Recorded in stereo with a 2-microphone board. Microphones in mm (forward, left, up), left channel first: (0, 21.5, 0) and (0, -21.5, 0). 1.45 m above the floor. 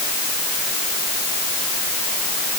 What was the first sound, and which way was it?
Only background noise.